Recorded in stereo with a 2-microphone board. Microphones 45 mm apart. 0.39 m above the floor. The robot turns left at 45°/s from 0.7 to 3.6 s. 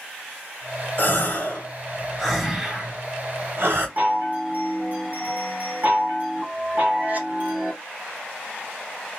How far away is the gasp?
About 1.3 m.